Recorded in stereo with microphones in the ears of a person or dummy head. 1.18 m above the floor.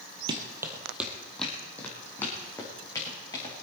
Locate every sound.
0.3 s running footsteps: 25° right (ahead or behind), 1.9 m; by 3.5 s 20° left (ahead or behind), 6 m